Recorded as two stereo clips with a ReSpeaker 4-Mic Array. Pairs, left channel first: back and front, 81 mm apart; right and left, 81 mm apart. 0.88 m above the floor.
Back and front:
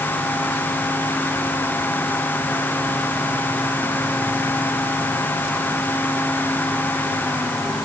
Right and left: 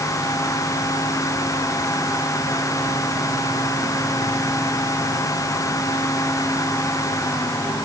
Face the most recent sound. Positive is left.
No sound to turn to.